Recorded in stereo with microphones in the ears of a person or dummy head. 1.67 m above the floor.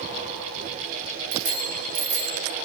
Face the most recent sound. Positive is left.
turn(degrees=-75)  # may be behind; listen again after turning